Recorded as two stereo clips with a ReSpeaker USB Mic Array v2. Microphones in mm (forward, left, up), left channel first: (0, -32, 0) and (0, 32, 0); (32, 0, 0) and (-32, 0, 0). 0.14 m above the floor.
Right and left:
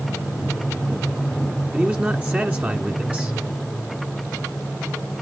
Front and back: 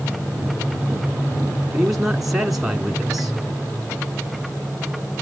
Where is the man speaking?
100° left, 1.3 m.